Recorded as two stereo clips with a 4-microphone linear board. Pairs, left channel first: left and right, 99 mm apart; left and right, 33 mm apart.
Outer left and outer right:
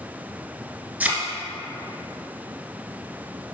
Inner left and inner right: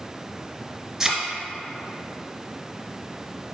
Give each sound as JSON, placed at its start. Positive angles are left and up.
{"t": 1.0, "sound": "a thud", "side_deg": -15, "distance_m": 1.4}